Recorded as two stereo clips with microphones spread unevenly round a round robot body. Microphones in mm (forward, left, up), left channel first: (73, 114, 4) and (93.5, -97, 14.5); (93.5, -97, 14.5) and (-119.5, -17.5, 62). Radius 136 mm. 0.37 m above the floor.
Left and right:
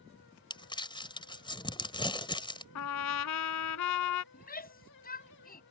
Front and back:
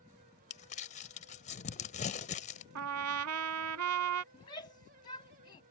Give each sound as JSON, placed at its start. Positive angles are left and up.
{"t": 0.5, "sound": "crumpling", "azimuth_deg": 30}
{"t": 2.8, "sound": "a trumpet", "azimuth_deg": 120}
{"t": 4.3, "sound": "a shout", "azimuth_deg": 50}